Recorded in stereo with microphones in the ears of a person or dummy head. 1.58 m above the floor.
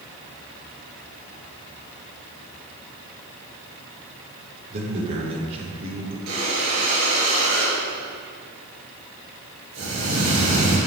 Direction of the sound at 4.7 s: 35° right (ahead or behind).